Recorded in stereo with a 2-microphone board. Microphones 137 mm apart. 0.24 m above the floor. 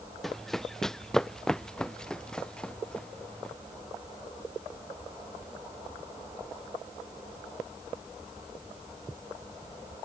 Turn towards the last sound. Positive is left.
turn(degrees=5)  # may be behind; listen again after turning